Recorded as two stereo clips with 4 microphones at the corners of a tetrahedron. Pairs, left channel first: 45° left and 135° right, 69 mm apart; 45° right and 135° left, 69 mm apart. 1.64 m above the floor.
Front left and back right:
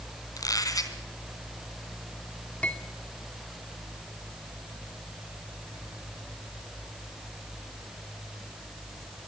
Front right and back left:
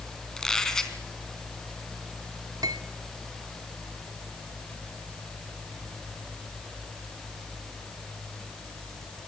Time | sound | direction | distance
0.4 | a squeak | 35° left | 3 m
2.6 | cutlery clinking | 115° left | 2.5 m